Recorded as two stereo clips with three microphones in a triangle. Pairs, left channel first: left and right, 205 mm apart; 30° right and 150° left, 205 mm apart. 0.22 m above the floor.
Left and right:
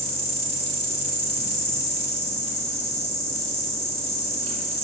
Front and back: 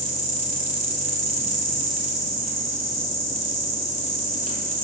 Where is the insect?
115° left, 0.8 m.